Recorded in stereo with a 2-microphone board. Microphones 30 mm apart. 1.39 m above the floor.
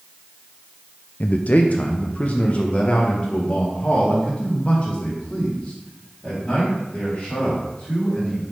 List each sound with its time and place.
1.2 s a man speaking: 50° left (ahead or behind), 0.5 m; by 8.4 s 35° left (ahead or behind), 5 m